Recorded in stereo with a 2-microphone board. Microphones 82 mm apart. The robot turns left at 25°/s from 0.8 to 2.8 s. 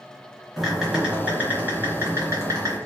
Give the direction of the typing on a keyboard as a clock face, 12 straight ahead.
12 o'clock.